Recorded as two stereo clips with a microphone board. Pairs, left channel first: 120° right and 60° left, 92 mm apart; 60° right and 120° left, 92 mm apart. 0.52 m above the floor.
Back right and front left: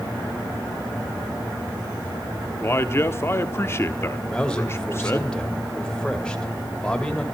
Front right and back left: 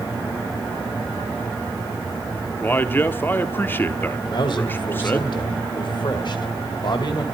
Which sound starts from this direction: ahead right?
A man speaking, at 4.3 s.